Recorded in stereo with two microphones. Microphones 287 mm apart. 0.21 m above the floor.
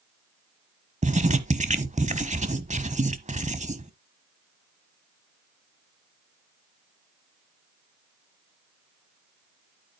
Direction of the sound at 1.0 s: 25° right (ahead or behind).